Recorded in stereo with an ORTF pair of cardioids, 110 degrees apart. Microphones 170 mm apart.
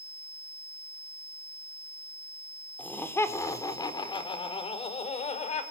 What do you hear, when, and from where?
2.8 s laughter: 10° left, 4.5 m; by 5.6 s 40° left, 5.5 m